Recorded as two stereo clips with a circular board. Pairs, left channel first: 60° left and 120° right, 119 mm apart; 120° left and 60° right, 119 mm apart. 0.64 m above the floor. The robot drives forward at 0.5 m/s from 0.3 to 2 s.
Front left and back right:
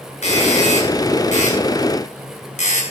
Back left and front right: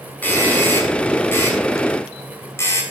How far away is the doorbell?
About 6.5 m.